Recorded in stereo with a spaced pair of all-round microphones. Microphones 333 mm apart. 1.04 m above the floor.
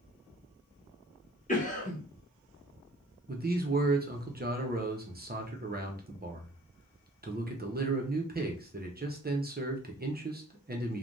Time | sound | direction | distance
1.5 | a cough | 25° left (ahead or behind) | 0.9 m
3.3 | a man speaking | 30° right (ahead or behind) | 0.6 m